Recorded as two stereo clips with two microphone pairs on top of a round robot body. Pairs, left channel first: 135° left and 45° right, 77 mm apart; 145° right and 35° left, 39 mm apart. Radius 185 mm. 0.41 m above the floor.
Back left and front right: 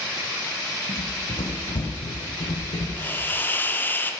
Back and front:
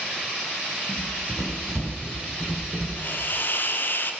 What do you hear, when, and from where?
0.9 s running footsteps: 105° left, 1.6 m; by 2.9 s 140° left, 1.8 m
3.0 s a hiss: 160° right, 1.0 m